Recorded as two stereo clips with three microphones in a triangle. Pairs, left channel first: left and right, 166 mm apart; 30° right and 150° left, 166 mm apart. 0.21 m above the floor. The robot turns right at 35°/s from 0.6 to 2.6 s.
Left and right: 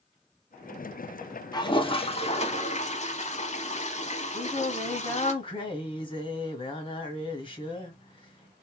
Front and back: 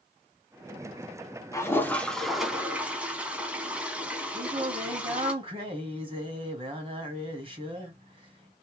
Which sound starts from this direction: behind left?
Singing, at 4.3 s.